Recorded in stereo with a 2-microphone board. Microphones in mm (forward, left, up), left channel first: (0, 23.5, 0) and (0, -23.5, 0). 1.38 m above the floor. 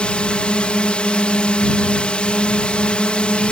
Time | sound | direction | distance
0.0 | a drone | 25° left (ahead or behind) | ?